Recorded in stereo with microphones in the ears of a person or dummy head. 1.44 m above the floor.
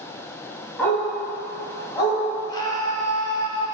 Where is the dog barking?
5° left (ahead or behind), 4 m; by 2.2 s 25° left (ahead or behind), 4.5 m.